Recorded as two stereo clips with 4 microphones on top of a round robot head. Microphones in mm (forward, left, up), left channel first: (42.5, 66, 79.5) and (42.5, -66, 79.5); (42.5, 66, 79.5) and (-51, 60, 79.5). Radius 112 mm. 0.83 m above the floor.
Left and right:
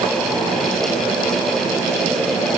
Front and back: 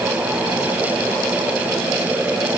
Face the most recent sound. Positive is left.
No sound to turn to.